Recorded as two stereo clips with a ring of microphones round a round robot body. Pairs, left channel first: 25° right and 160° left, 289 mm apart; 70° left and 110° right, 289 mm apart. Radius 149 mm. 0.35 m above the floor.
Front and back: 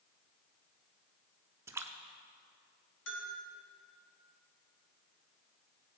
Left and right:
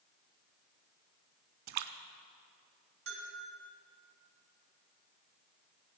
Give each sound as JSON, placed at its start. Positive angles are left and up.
{"t": 1.7, "sound": "a splash", "azimuth_deg": -120, "distance_m": 0.7}
{"t": 3.1, "sound": "a bell", "azimuth_deg": -70, "distance_m": 3.0}